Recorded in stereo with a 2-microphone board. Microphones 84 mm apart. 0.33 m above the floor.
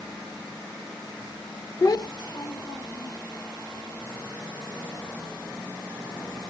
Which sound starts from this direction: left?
A child speaking, at 1.8 s.